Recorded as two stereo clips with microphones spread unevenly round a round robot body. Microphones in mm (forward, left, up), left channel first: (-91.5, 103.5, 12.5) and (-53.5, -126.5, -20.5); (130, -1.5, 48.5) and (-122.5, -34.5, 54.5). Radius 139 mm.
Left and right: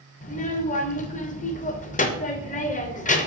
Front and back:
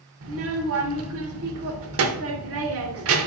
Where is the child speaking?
160° left, 0.6 m.